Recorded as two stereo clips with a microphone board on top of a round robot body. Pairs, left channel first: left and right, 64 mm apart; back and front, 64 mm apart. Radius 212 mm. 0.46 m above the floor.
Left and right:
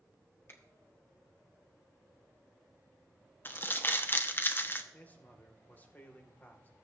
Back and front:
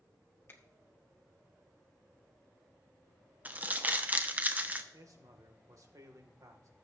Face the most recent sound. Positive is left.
turn(degrees=30)